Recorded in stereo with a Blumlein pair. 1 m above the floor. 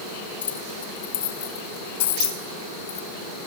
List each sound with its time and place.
0.4 s keys jangling: 65° left, 5 m
2.0 s a dropped coin: 60° left, 3 m